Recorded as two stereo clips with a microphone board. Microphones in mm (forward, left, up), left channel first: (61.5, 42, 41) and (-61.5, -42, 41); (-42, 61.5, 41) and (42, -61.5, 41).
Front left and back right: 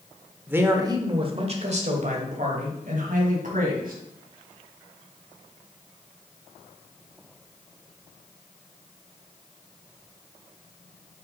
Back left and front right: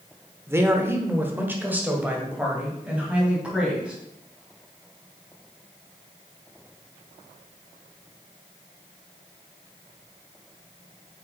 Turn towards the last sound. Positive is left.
turn(degrees=-140)